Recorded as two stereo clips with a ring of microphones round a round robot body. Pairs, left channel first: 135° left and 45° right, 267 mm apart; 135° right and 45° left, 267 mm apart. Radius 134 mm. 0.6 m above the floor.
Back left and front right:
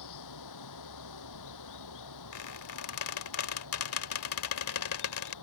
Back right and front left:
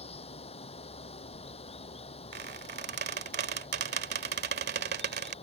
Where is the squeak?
100° left.